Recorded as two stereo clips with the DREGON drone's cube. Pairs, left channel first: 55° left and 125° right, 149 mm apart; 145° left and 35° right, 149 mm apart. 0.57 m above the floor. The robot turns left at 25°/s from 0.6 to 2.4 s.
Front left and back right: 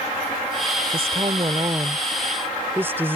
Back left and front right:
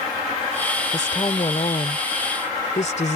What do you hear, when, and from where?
0.9 s a woman speaking: 160° right; by 3.2 s 165° left